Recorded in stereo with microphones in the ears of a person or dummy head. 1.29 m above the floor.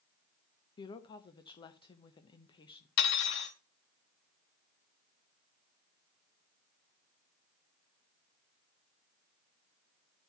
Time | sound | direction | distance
0.8 | a woman speaking | 25° left (ahead or behind) | 1.0 m
3.0 | cutlery clinking | 65° left (ahead or behind) | 1.3 m